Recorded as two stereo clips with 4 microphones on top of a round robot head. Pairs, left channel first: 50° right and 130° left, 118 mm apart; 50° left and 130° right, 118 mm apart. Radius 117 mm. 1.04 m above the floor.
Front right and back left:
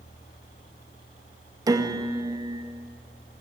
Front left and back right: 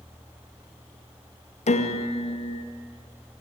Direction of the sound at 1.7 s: 70° left.